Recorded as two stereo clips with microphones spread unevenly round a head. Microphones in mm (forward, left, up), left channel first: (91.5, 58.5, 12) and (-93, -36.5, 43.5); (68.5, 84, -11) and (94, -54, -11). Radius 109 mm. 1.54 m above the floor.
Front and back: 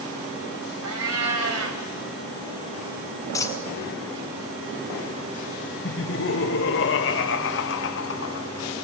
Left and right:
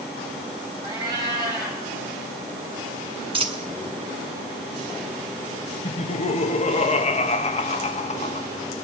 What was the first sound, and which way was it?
A cat meowing, 150° right.